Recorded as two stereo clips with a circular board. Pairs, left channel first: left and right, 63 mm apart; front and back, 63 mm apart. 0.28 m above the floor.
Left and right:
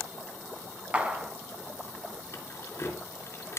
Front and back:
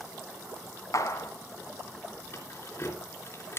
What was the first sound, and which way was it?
A clap, 20° right.